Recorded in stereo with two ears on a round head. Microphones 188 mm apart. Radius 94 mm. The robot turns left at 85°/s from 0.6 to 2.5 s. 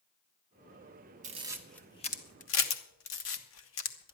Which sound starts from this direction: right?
A camera shutter, at 1.2 s.